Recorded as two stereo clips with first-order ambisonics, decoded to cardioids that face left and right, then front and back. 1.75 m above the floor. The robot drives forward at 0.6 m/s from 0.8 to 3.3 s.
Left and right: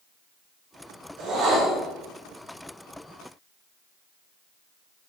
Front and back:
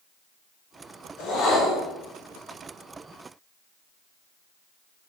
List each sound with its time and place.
1.2 s a whoosh: 50° right, 4.5 m; by 1.9 s 55° right, 4.5 m